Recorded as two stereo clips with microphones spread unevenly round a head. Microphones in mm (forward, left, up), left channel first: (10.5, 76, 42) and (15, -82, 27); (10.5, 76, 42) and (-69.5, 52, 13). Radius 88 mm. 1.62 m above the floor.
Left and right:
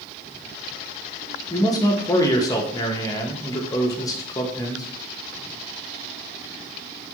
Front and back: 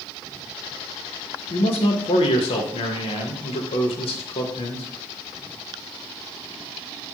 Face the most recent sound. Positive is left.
turn(degrees=25)